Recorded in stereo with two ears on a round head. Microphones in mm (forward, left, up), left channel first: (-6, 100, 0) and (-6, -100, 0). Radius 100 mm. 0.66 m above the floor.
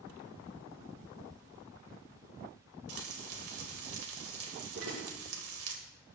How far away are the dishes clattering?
About 7 m.